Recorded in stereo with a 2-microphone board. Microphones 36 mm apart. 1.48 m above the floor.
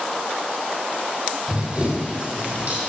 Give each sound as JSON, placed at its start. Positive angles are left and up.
{"t": 1.5, "sound": "running footsteps", "side_deg": -35, "distance_m": 3.5}